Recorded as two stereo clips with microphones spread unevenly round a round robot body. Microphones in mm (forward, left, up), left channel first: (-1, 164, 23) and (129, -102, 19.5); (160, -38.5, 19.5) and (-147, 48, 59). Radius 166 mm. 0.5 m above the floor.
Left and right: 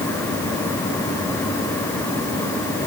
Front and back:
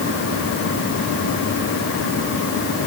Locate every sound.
Only background noise.